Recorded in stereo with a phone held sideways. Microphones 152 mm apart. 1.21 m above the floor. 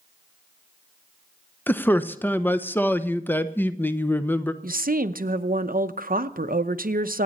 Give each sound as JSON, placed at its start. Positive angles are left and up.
{"t": 1.7, "sound": "a man speaking", "side_deg": 15, "distance_m": 0.8}
{"t": 4.6, "sound": "a woman speaking", "side_deg": -70, "distance_m": 0.8}